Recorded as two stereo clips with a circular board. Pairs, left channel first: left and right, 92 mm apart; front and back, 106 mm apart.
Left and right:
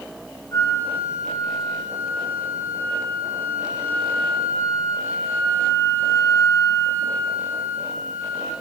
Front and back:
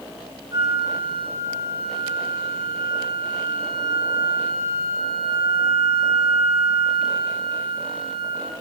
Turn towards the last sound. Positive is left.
turn(degrees=140)